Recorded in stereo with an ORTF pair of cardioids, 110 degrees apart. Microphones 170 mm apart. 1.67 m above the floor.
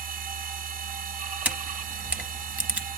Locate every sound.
0.0 s a machine running: 55° right, 0.8 m
1.4 s a camera shutter: 10° right, 0.7 m